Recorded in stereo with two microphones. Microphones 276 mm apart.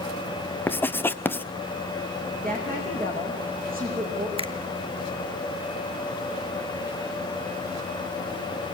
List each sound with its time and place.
0.7 s writing: 10° left (ahead or behind), 0.6 m
2.4 s a woman speaking: 30° right (ahead or behind), 7 m
4.4 s a finger snap: 20° right (ahead or behind), 1.0 m